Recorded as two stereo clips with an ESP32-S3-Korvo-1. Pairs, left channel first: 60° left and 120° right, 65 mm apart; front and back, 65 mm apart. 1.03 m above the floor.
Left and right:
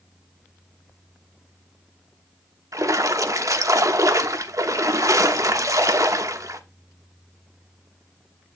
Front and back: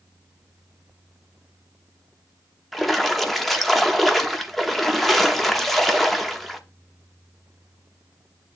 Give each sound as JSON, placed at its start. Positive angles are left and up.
{"t": 2.7, "sound": "a splash", "azimuth_deg": -85, "distance_m": 1.0}